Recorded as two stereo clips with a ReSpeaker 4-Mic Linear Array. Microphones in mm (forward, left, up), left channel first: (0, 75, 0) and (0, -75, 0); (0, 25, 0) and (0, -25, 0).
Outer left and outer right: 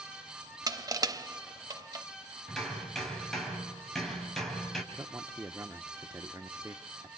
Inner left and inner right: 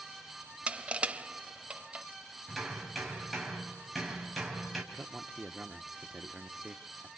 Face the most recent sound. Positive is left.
turn(degrees=-15)  # may be behind; listen again after turning